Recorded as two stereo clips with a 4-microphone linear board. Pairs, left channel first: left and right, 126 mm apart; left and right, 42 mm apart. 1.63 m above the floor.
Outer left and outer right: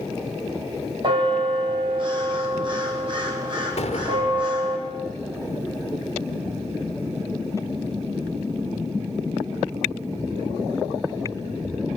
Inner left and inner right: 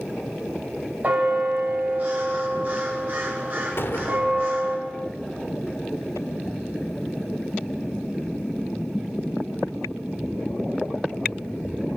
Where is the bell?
40° right (ahead or behind), 5.5 m.